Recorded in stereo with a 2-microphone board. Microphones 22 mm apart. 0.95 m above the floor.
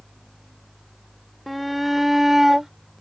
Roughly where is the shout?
Centre.